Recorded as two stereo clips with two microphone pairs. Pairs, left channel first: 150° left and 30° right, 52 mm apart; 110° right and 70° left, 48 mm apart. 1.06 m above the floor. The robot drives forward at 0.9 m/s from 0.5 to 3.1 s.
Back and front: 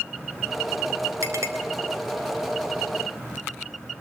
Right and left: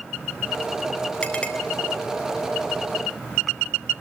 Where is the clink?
40° right, 4 m; by 1.5 s 45° right, 3.5 m.